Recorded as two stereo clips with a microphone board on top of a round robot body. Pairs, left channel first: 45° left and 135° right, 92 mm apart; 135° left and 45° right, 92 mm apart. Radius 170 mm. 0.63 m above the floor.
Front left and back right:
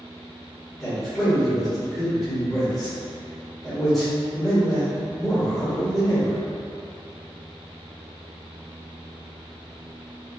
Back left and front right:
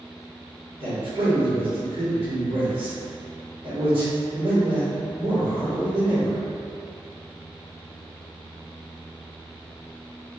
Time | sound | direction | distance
0.8 | a man speaking | 40° right | 1.8 m